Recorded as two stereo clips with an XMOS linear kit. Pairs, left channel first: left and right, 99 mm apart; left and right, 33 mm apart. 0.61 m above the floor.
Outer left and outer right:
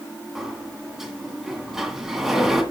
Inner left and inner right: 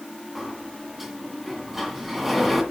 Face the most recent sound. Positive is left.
turn(degrees=-5)  # may be behind; listen again after turning